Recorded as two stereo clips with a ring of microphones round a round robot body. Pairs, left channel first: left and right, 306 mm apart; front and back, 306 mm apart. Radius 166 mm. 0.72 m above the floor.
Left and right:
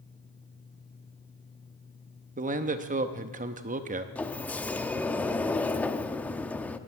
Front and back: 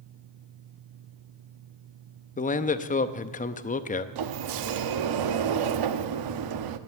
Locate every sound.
2.4 s a man speaking: 45° right, 0.7 m
4.2 s a sliding door: 175° left, 0.7 m